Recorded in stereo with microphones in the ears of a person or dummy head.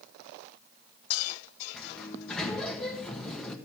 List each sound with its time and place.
1.7 s a sliding door: 5° left (ahead or behind), 1.7 m